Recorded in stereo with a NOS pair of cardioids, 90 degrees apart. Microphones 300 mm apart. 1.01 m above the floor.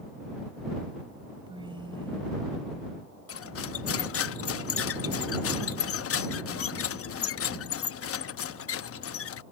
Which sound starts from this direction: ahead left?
Cutlery clinking, at 3.3 s.